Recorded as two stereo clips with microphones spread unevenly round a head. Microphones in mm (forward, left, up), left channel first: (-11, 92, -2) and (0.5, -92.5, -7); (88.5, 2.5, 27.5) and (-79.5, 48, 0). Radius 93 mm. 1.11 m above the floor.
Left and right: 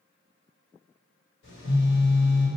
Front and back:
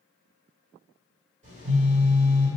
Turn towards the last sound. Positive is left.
turn(degrees=120)